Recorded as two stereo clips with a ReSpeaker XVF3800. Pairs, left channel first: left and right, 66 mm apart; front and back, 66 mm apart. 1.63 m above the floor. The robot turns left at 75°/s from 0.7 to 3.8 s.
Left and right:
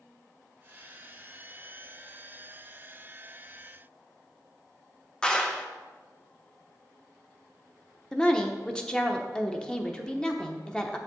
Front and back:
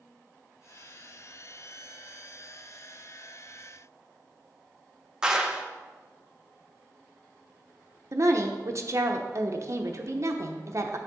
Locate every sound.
5.2 s a clap: 135° left, 0.8 m
8.1 s a woman speaking: 165° left, 0.8 m